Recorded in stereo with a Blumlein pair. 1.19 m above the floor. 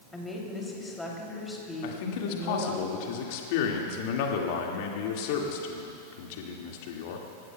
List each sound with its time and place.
0.1 s a woman speaking: 10° left, 3 m
1.8 s a man speaking: 50° left, 2.0 m